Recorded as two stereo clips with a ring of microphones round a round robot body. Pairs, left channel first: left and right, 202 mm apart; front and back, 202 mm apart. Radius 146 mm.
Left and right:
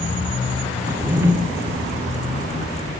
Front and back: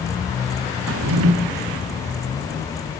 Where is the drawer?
170° right, 0.8 m.